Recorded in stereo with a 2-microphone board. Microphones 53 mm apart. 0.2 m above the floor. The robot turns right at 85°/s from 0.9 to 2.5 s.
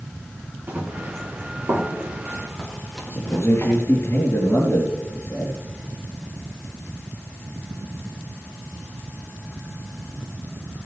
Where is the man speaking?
55° left (ahead or behind), 4 m.